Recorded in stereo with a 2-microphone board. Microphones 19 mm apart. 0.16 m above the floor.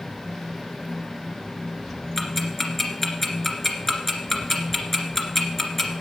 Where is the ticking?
15° left (ahead or behind), 1.8 m.